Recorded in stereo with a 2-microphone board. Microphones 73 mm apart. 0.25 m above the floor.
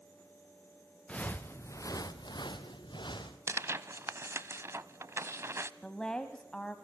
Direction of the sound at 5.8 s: 10° left (ahead or behind).